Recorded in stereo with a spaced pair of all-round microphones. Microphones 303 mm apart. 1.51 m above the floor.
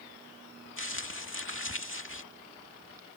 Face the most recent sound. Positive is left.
turn(degrees=45)  # may be behind; listen again after turning